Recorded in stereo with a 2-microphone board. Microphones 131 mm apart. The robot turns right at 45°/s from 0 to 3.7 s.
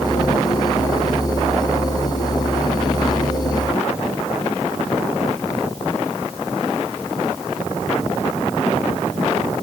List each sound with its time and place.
Only background noise.